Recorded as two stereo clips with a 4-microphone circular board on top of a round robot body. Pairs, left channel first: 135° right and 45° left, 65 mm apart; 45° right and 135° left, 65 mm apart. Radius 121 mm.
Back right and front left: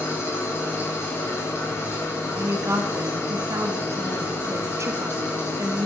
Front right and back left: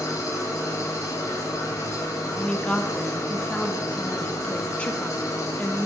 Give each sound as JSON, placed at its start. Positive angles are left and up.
{"t": 0.0, "sound": "an engine running", "azimuth_deg": -85, "distance_m": 2.5}
{"t": 2.3, "sound": "a woman speaking", "azimuth_deg": 25, "distance_m": 1.2}